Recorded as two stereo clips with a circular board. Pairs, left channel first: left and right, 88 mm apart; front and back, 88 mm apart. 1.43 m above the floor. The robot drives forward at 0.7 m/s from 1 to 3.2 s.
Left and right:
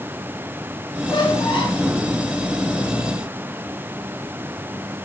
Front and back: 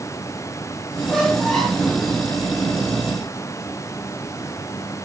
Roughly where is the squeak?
Left.